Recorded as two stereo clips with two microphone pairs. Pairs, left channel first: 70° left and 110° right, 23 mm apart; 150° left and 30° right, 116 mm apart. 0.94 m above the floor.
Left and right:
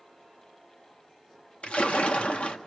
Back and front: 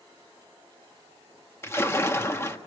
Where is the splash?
85° left, 1.6 m.